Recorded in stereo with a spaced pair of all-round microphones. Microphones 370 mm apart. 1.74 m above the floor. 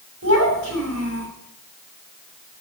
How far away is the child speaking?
About 6 m.